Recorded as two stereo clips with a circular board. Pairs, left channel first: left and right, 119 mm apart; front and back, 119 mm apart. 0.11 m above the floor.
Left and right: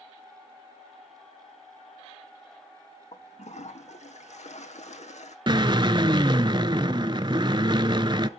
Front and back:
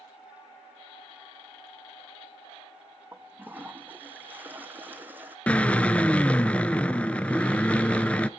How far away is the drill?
About 0.6 m.